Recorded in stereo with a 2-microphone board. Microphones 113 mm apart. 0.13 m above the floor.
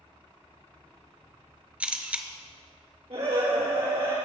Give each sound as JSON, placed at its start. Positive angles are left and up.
{"t": 1.8, "sound": "a camera shutter", "side_deg": -10, "distance_m": 0.8}
{"t": 3.1, "sound": "a scream", "side_deg": -60, "distance_m": 4.0}